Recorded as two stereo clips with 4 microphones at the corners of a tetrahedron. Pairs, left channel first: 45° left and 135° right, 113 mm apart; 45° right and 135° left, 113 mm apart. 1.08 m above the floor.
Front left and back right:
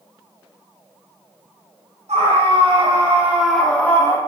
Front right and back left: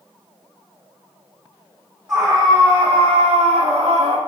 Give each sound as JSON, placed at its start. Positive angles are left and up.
{"t": 2.1, "sound": "a scream", "azimuth_deg": -155, "distance_m": 2.0}